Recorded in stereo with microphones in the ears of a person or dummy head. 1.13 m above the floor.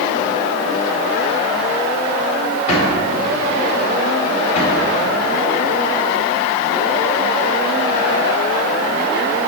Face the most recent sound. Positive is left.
turn(degrees=40)  # may be behind; listen again after turning